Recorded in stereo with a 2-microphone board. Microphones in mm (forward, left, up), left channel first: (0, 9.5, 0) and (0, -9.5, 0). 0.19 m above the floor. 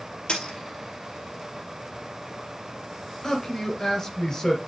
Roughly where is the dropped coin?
Left.